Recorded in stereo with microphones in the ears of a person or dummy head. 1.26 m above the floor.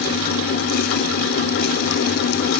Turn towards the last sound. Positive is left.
No sound to turn to.